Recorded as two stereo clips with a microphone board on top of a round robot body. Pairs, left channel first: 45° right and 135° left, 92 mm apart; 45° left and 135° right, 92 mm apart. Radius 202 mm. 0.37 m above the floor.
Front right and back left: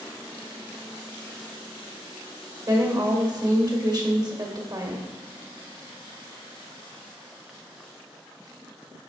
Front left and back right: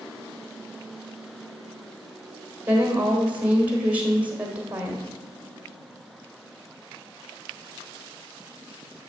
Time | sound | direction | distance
2.7 | a woman speaking | 155° left | 1.8 m